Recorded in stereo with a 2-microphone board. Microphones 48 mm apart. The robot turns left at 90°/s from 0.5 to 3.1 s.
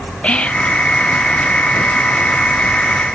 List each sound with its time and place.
0.2 s whispering: 20° left (ahead or behind), 0.6 m; by 0.8 s 30° left (ahead or behind), 0.6 m